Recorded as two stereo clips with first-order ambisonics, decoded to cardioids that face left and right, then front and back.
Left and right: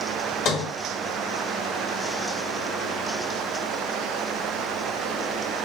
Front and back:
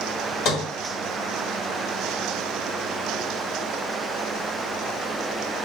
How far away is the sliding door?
About 2.0 m.